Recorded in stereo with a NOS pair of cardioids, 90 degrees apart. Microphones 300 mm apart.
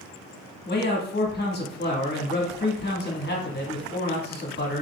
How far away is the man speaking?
About 1.5 m.